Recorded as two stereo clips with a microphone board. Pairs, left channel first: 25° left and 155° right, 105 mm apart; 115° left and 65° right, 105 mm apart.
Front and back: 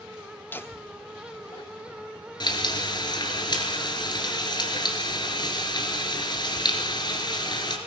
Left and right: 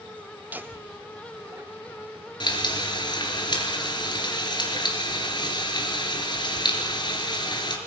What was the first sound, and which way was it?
Laughter, 20° right.